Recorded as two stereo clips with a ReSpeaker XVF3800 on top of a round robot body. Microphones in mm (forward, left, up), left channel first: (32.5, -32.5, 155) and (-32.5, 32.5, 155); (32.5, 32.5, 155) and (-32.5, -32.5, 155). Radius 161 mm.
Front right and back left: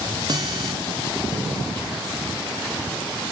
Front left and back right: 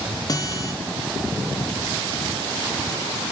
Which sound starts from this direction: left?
A guitar, at 0.3 s.